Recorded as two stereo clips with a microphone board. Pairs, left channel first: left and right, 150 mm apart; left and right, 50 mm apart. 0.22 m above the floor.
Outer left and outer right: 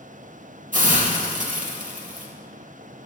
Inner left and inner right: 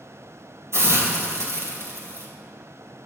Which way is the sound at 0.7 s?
60° right (ahead or behind).